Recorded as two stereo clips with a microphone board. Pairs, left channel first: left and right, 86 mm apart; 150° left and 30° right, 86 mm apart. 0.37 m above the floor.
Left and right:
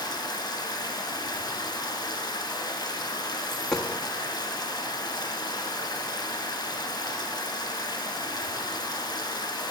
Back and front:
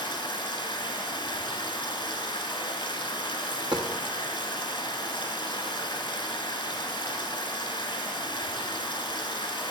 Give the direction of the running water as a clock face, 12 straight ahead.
8 o'clock.